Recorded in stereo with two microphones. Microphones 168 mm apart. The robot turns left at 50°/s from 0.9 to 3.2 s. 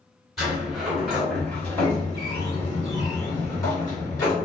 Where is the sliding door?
Centre (ahead or behind), 1.7 m; by 4.5 s 20° left (ahead or behind), 1.7 m.